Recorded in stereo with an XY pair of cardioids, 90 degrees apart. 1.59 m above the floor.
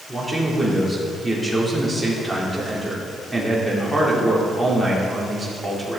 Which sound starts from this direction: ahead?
A man speaking, at 0.1 s.